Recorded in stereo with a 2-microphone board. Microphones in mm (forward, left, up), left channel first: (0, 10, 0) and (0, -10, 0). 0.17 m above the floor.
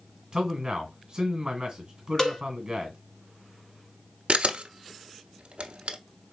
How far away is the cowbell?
About 0.9 m.